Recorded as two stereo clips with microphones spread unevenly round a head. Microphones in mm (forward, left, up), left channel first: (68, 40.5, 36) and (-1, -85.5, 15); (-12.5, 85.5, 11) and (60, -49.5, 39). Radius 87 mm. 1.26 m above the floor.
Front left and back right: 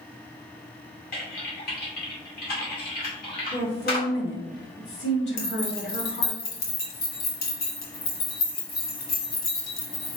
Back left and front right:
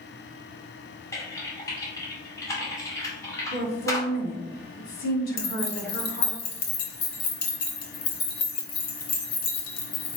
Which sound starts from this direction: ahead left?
Typing on a keyboard, at 1.1 s.